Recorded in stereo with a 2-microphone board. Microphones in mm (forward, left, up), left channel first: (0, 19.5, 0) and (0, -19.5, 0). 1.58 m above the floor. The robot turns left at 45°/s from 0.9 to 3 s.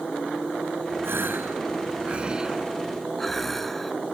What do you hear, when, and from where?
1.0 s a gasp: 95° right; by 3.9 s 175° left